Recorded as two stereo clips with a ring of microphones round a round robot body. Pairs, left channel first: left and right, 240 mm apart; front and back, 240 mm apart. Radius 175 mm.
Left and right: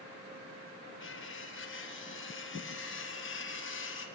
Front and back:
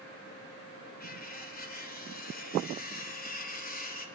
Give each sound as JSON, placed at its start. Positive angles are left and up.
{"t": 1.0, "sound": "cutlery clinking", "azimuth_deg": 50, "distance_m": 5.0}